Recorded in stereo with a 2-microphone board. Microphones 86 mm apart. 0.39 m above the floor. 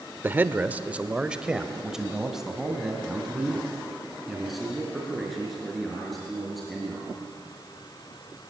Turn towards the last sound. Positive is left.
turn(degrees=5)  # may be behind; listen again after turning